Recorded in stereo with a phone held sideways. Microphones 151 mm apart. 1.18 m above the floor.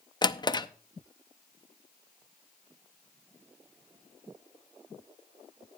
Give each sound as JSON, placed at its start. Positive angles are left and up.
{"t": 0.2, "sound": "a drawer", "side_deg": 30, "distance_m": 0.6}